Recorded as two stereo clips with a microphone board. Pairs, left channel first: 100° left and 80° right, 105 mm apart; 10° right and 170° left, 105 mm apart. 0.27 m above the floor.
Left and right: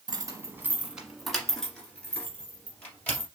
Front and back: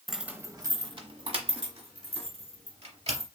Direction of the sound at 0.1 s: 100° right.